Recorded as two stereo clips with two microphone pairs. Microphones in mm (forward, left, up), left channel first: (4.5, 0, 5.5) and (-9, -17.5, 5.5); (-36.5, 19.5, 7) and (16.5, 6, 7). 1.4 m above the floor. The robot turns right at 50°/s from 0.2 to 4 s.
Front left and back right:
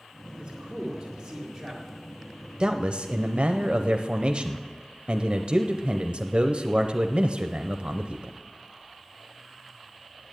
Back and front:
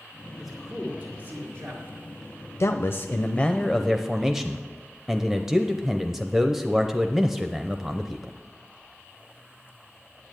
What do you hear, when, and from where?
0.4 s a man speaking: 110° right, 2 m; by 1.8 s 35° right, 2 m
2.6 s a man speaking: 170° right, 0.6 m; by 8.3 s 100° right, 0.6 m